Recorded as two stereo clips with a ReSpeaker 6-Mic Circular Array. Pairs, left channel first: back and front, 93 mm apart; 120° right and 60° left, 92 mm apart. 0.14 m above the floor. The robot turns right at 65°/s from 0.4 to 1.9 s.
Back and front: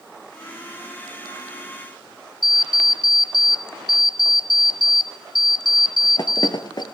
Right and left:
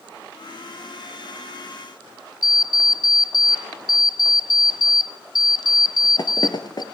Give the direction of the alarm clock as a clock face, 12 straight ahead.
5 o'clock.